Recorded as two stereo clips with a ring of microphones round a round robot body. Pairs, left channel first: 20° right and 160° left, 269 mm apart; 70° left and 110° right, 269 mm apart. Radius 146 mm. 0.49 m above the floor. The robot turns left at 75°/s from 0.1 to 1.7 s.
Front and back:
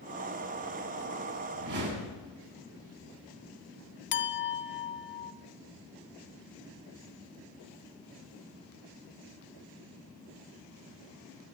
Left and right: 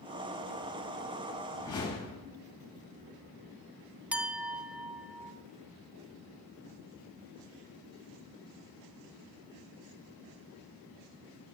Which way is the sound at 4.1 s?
30° right.